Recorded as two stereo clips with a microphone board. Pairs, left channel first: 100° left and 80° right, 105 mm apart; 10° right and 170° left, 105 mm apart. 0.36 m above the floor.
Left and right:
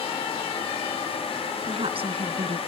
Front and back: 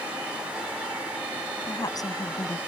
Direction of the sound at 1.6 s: 60° right.